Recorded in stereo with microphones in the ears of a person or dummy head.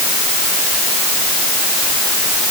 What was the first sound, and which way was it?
Only background noise.